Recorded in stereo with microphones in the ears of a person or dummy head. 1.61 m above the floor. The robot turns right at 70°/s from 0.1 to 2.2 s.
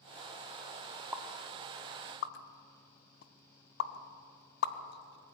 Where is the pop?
10° right (ahead or behind), 1.4 m; by 5.3 s 65° left (ahead or behind), 1.4 m.